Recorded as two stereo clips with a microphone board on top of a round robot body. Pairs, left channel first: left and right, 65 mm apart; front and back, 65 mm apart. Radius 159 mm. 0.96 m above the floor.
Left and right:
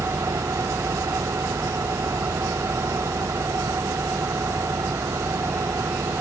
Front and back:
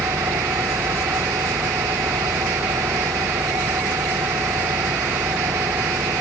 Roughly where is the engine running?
Behind right.